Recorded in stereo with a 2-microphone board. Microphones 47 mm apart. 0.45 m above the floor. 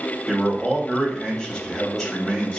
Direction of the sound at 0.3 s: 5° left (ahead or behind).